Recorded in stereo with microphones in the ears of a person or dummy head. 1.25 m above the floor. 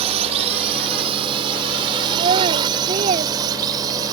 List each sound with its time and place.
0.0 s a drone: 35° right (ahead or behind); by 4.1 s 25° right (ahead or behind)
2.1 s a child speaking: 35° right (ahead or behind)